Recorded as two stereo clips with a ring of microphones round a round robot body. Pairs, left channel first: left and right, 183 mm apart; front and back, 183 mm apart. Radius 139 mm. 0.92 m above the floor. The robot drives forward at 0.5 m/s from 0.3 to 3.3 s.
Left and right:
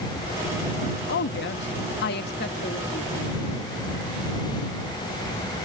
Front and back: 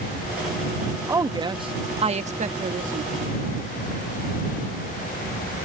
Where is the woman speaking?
105° left; by 3.5 s 140° left.